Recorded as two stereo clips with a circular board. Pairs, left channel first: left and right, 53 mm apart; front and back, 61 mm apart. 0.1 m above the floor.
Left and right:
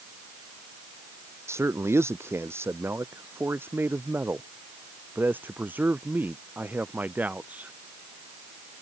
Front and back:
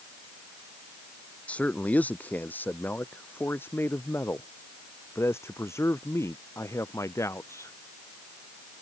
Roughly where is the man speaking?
Ahead right.